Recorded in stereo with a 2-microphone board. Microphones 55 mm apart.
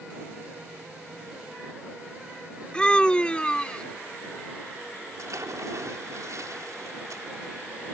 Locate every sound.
2.7 s a scream: 20° left (ahead or behind)
5.2 s a splash: 80° right